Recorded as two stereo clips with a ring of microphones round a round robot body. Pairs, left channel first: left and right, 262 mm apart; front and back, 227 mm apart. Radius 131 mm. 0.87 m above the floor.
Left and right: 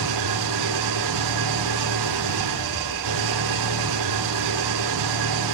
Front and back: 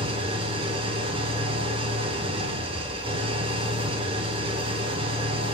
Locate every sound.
0.0 s an engine running: 105° right, 2.5 m